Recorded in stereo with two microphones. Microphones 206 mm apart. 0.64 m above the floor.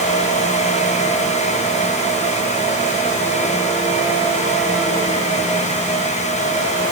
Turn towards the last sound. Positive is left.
No sound to turn to.